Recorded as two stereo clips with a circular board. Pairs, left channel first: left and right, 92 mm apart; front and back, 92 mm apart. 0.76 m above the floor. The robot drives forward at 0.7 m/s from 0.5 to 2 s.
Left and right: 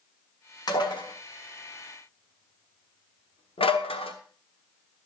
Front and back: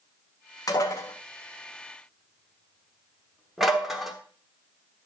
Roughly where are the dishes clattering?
Ahead left.